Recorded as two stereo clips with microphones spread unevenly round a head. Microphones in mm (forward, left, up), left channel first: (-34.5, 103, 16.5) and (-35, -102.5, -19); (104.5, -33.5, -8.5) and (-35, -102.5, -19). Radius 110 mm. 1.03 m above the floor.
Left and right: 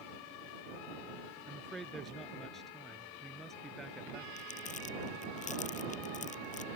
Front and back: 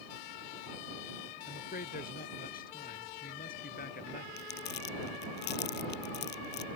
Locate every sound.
1.5 s a man speaking: straight ahead
4.4 s crumpling: 35° left